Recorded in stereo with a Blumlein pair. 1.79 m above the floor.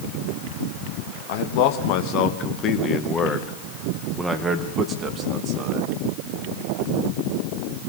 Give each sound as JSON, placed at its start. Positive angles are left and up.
{"t": 1.3, "sound": "a man speaking", "azimuth_deg": 50, "distance_m": 3.0}